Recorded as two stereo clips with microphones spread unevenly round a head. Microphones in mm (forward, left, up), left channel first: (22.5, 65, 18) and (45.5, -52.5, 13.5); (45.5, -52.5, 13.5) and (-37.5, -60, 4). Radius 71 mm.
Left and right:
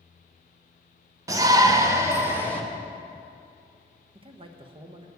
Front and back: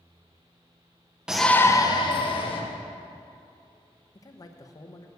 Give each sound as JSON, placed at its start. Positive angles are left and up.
{"t": 1.3, "sound": "a shout", "azimuth_deg": -115, "distance_m": 0.8}
{"t": 4.2, "sound": "a man speaking", "azimuth_deg": -40, "distance_m": 1.1}